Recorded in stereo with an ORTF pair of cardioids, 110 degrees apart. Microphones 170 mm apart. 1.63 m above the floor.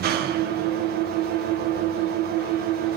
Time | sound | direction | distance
0.0 | an engine running | 65° right | 1.2 m